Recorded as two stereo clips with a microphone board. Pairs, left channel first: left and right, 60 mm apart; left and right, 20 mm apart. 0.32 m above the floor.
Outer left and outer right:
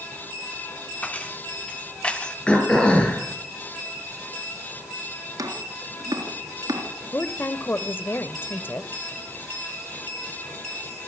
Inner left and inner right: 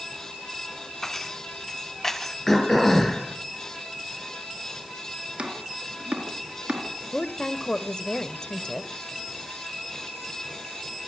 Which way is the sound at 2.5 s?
15° left (ahead or behind).